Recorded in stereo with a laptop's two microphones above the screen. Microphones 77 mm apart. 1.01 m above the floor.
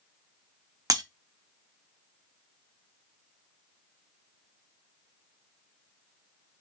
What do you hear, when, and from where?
0.9 s breaking glass: 50° right (ahead or behind), 0.5 m